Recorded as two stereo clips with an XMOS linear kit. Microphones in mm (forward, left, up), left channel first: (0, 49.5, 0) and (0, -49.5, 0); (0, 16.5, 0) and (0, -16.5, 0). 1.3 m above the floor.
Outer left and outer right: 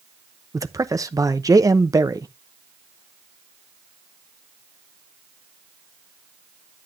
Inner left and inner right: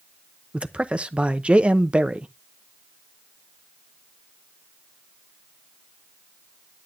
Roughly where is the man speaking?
Right.